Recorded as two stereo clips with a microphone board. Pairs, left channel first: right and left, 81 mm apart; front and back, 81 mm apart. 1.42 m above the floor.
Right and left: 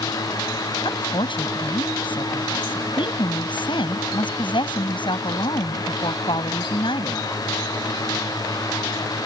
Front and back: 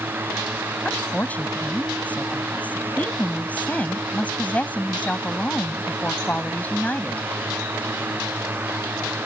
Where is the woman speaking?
75° right.